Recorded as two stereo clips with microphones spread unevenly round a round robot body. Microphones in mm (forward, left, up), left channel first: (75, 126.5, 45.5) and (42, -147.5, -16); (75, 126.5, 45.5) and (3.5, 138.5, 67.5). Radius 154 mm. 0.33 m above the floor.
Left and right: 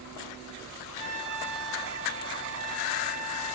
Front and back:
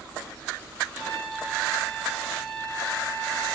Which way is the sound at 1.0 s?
30° right.